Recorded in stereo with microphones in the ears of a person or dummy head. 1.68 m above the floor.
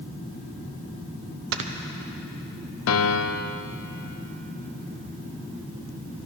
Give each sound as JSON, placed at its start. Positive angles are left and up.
{"t": 1.5, "sound": "snoring", "side_deg": -70, "distance_m": 0.9}
{"t": 2.9, "sound": "a piano", "side_deg": 85, "distance_m": 0.6}